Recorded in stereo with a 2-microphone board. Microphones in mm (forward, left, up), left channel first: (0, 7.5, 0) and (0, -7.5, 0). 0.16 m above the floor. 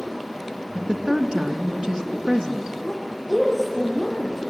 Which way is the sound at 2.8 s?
15° right (ahead or behind).